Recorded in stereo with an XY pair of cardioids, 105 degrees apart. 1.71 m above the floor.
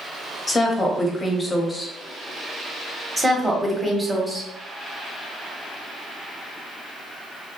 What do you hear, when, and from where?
0.5 s a woman speaking: 20° left, 0.8 m
3.2 s a woman speaking: 10° right, 1.0 m